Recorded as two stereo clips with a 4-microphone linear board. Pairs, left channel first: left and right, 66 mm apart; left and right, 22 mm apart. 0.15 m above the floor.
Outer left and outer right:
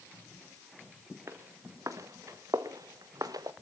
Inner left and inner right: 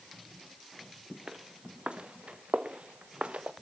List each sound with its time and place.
1.3 s footsteps: 50° right (ahead or behind), 2.5 m; by 3.5 s 75° right (ahead or behind), 1.4 m